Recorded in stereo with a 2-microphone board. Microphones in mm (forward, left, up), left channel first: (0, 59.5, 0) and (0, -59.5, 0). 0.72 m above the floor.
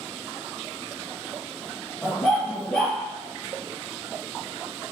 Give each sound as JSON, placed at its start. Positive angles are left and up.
{"t": 2.0, "sound": "a dog barking", "side_deg": 5, "distance_m": 3.0}